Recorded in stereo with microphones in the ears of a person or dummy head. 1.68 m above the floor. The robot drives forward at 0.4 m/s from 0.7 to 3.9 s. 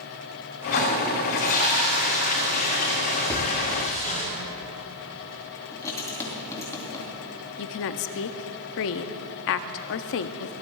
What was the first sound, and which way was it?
A toilet flushing, 50° left (ahead or behind).